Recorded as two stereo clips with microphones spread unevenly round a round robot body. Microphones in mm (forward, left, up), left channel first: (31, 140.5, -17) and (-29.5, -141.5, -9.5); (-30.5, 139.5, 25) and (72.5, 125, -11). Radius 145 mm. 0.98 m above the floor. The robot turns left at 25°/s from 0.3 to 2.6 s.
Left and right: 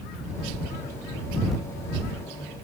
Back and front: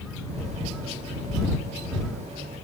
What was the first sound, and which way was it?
Only background noise.